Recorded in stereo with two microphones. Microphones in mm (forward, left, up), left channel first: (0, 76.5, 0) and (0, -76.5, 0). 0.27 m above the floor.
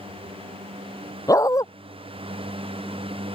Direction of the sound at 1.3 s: 20° left (ahead or behind).